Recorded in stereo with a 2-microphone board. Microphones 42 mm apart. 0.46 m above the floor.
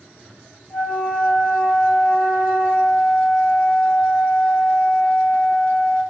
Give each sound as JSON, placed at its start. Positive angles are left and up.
{"t": 0.7, "sound": "a flute", "side_deg": 10, "distance_m": 2.5}